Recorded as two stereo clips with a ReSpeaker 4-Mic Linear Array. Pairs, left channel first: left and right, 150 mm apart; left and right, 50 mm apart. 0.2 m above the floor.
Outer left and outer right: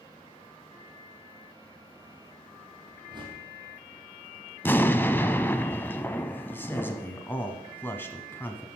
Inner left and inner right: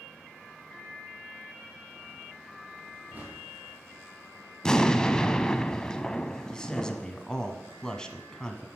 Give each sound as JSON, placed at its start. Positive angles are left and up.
{"t": 3.1, "sound": "a whoosh", "side_deg": -30, "distance_m": 3.0}
{"t": 4.6, "sound": "an explosion", "side_deg": 15, "distance_m": 0.5}
{"t": 6.5, "sound": "a man speaking", "side_deg": 15, "distance_m": 1.3}